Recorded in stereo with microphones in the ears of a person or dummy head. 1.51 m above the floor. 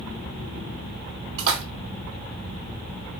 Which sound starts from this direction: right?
A splash, at 1.4 s.